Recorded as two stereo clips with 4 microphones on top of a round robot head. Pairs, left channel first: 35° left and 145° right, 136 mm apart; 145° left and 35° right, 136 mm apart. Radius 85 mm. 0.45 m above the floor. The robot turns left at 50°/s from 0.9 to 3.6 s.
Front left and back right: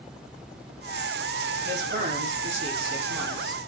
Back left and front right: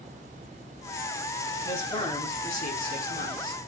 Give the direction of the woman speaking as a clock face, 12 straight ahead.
5 o'clock.